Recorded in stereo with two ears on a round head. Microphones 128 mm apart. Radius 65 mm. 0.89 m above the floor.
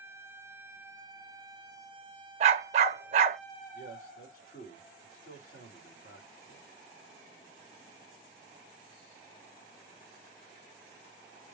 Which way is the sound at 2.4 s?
45° right (ahead or behind).